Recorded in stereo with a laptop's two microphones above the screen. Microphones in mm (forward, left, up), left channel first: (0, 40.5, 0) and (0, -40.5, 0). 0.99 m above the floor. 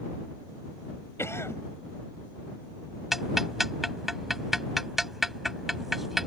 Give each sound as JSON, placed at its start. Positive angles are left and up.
{"t": 1.2, "sound": "a cough", "side_deg": 30}
{"t": 3.1, "sound": "ticking", "side_deg": -5}